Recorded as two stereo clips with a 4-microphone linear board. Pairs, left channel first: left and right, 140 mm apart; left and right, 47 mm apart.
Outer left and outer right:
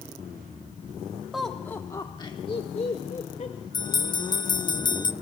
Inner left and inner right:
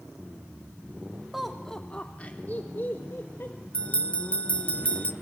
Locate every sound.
1.3 s laughter: 5° right (ahead or behind), 1.0 m; by 3.6 s 55° left (ahead or behind), 2 m
3.7 s a bell: 30° left (ahead or behind), 0.8 m